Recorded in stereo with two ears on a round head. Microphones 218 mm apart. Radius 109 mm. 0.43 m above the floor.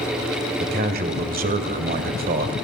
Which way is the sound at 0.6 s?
40° right (ahead or behind).